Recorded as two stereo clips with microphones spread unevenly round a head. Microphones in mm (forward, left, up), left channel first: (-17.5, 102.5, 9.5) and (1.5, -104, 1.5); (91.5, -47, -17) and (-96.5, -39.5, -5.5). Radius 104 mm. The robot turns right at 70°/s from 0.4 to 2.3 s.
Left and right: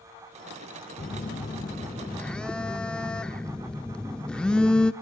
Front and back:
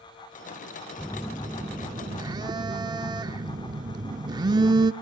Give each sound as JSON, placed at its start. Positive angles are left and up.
{"t": 1.0, "sound": "a phone buzzing", "azimuth_deg": 75, "distance_m": 0.9}